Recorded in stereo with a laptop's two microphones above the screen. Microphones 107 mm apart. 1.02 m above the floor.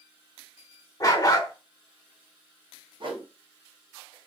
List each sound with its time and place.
1.0 s a dog barking: 35° left (ahead or behind), 0.8 m
3.0 s a whoosh: 50° right (ahead or behind), 0.9 m